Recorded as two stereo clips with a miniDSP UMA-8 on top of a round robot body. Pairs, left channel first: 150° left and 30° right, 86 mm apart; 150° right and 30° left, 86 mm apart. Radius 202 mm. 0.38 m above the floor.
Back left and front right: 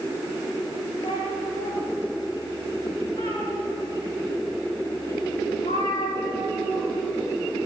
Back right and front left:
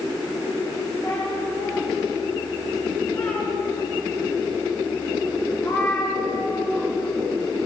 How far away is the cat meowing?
About 8.5 m.